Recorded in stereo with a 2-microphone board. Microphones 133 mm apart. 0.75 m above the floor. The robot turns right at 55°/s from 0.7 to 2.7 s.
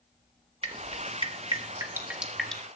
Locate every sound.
0.6 s dripping: 50° right (ahead or behind), 1.4 m; by 2.6 s 10° left (ahead or behind), 1.4 m